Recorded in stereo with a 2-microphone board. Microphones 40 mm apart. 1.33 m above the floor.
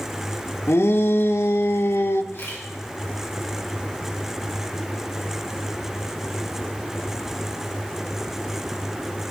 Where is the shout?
75° left (ahead or behind), 1.3 m.